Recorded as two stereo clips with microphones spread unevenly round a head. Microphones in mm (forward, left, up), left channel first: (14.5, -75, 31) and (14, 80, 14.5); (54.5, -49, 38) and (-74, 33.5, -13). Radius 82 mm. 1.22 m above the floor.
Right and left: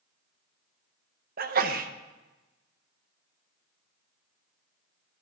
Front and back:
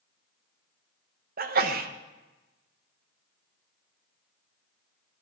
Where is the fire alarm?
I don't hear a fire alarm.